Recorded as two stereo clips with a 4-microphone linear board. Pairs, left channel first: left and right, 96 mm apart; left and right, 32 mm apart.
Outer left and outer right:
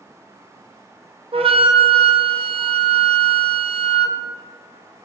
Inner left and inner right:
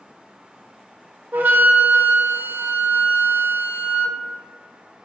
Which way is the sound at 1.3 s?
65° right (ahead or behind).